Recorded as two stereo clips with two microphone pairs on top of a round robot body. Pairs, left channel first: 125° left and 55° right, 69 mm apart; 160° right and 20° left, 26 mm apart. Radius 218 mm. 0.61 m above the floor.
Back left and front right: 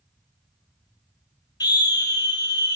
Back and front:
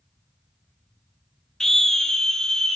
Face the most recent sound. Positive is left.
turn(degrees=130)